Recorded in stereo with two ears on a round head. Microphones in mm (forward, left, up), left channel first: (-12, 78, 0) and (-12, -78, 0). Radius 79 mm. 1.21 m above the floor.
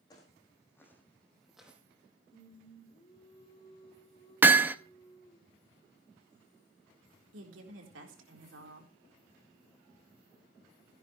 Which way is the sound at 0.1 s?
20° left (ahead or behind).